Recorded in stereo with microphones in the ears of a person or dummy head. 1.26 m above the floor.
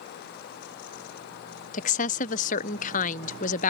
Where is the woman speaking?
35° left (ahead or behind).